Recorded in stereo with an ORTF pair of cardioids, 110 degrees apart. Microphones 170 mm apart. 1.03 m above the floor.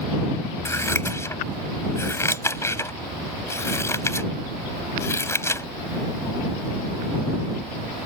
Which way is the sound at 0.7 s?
15° left.